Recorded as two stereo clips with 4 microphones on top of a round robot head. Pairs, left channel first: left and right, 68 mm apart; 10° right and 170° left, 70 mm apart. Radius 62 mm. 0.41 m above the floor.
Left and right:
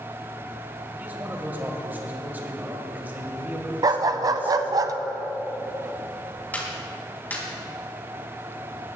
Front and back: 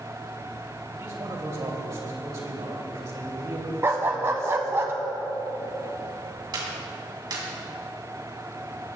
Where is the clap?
155° left, 3 m.